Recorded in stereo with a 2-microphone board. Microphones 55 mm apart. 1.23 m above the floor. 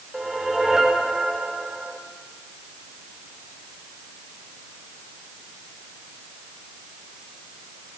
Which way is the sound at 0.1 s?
10° right (ahead or behind).